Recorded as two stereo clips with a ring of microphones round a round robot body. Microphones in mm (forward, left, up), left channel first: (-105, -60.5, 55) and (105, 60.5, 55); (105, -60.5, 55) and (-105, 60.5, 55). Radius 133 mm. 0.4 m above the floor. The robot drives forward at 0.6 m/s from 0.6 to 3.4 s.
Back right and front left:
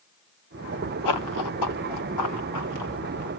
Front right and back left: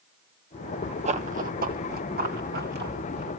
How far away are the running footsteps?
About 0.9 m.